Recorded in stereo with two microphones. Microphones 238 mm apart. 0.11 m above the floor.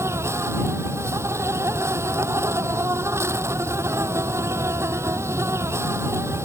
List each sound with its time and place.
0.0 s an insect: 10° right (ahead or behind)